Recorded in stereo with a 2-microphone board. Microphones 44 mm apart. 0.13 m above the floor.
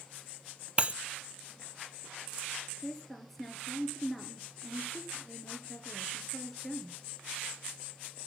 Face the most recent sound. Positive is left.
turn(degrees=5)  # may be behind; listen again after turning